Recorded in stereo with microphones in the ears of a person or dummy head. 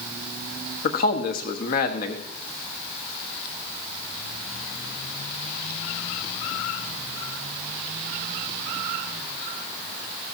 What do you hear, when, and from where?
0.8 s a man speaking: 40° left (ahead or behind), 1.2 m